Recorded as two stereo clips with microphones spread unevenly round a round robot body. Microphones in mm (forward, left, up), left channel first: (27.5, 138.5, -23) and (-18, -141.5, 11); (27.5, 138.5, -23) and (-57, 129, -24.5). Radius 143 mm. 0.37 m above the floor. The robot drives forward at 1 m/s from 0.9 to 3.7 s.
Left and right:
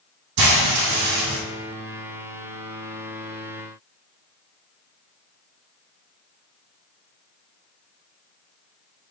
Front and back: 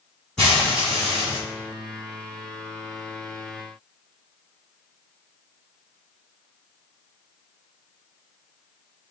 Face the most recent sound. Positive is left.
turn(degrees=-125)